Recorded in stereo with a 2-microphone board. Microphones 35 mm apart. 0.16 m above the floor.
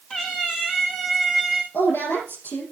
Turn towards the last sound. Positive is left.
turn(degrees=80)